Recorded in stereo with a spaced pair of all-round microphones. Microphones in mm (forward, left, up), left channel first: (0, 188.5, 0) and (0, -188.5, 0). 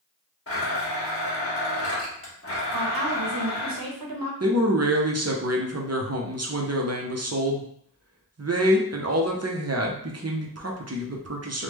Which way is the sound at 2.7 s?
65° right (ahead or behind).